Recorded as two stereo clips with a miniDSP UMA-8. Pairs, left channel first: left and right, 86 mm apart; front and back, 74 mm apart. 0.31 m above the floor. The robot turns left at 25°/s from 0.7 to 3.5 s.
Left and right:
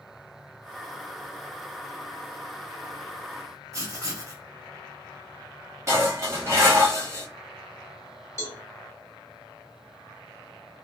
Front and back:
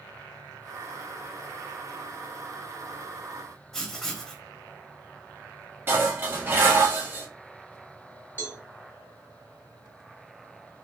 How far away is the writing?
About 1.0 m.